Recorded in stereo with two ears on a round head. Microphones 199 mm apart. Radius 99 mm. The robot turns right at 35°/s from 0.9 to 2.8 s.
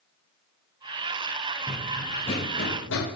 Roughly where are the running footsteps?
Centre.